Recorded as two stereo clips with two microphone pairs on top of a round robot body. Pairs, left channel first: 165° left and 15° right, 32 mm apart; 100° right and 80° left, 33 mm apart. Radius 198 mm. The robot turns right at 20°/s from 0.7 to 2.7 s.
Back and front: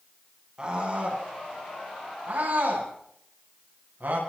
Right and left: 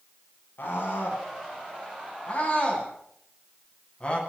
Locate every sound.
0.6 s a scream: 80° right, 10 m; by 4.2 s 40° right, 10 m